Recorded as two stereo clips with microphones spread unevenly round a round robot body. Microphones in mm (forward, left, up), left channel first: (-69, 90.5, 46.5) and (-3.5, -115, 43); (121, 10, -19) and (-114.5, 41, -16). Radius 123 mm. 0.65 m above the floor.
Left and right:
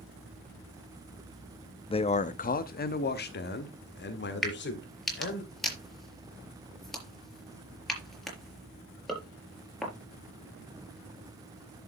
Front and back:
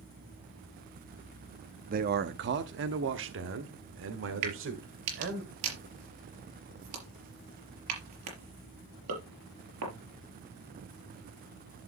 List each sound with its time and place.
1.9 s a man speaking: 155° left, 0.6 m; by 5.4 s 140° left, 2 m
4.4 s a crack: 165° right, 4.5 m